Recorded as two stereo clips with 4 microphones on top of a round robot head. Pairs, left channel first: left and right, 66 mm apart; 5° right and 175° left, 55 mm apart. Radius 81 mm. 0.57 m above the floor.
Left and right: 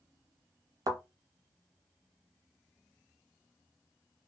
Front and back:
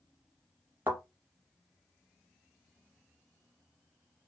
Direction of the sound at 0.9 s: 120° right.